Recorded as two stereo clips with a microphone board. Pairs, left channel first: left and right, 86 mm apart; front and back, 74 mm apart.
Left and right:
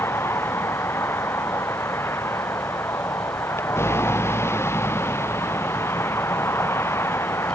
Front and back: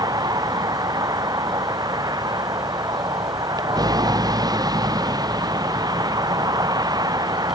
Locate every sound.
0.0 s a vehicle: 150° left